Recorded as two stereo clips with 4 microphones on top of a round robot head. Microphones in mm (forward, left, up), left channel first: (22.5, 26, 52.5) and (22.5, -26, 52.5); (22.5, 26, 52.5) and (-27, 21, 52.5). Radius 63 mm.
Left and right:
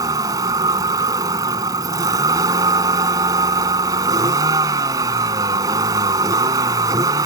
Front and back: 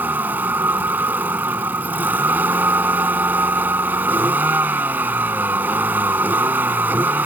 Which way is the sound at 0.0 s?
110° right.